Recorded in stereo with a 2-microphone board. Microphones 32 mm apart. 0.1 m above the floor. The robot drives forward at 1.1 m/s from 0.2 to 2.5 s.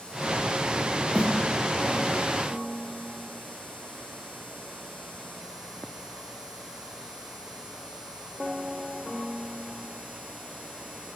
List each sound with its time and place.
1.1 s a snare drum: 45° right (ahead or behind), 8 m